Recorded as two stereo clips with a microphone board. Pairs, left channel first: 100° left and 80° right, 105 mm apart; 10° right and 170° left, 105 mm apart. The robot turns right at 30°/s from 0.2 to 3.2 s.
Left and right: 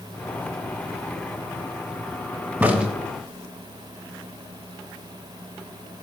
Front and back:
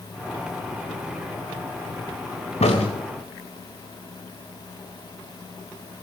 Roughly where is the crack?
Ahead.